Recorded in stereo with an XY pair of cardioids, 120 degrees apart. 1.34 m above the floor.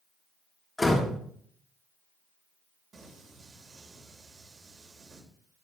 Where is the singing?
35° right, 3 m.